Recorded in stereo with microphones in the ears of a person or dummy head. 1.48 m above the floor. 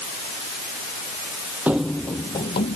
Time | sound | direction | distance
1.7 | running footsteps | 5° right (ahead or behind) | ?